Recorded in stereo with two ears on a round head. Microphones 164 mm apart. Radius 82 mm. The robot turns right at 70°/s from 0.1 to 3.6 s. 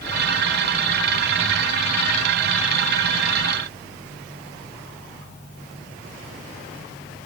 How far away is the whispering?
No whispering in this recording.